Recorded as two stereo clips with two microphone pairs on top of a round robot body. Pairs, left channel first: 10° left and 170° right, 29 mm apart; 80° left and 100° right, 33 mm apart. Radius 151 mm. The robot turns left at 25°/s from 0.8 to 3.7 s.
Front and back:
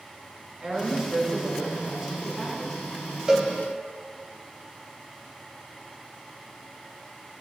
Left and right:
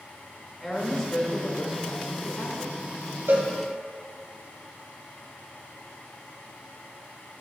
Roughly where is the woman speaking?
Behind left.